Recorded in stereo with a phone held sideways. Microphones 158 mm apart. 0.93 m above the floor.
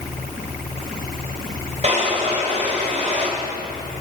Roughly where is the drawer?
Right.